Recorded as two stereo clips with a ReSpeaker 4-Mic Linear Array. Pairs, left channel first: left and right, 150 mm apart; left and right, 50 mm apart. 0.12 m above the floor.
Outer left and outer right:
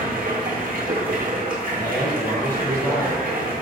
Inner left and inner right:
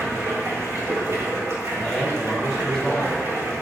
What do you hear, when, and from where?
0.0 s running water: 65° right (ahead or behind), 1.4 m
1.7 s a man speaking: 15° left (ahead or behind), 1.5 m